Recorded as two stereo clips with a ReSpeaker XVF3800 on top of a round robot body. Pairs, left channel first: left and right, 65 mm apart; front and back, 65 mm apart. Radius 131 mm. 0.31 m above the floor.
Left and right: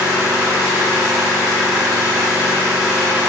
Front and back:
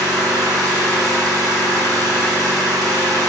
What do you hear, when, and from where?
0.0 s an engine running: 170° right, 0.9 m